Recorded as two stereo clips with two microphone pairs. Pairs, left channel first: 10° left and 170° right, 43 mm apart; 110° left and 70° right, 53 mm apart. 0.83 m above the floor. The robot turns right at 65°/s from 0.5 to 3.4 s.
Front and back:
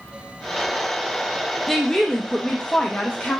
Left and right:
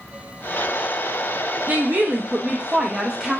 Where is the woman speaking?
80° right, 0.5 m; by 3.4 s 30° left, 0.5 m.